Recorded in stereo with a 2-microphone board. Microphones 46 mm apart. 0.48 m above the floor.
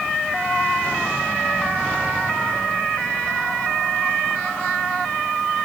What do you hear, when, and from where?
Only background noise.